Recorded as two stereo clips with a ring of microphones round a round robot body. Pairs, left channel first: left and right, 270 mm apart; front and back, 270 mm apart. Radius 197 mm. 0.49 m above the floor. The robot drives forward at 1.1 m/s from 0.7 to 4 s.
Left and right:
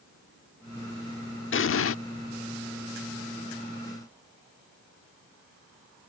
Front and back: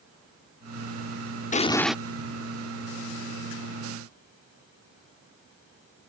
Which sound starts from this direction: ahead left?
An explosion, at 1.5 s.